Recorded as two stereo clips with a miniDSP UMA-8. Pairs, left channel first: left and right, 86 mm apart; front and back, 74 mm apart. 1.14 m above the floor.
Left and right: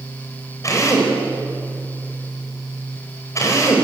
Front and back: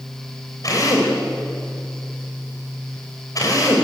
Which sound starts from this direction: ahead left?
A drill, at 0.6 s.